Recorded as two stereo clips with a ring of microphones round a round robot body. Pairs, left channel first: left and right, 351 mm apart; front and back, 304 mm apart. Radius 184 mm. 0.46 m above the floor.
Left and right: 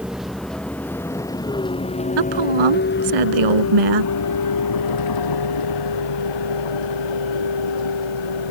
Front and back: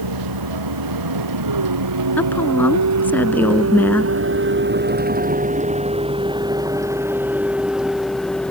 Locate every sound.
0.0 s a vehicle: straight behind; by 8.5 s 85° left
2.2 s a woman speaking: 85° right